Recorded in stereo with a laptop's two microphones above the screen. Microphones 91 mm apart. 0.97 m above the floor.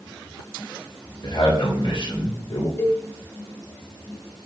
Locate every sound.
1.2 s a man speaking: 50° left (ahead or behind), 3.5 m; by 2.7 s 80° left, 2 m
2.8 s a cowbell: 25° left (ahead or behind), 0.7 m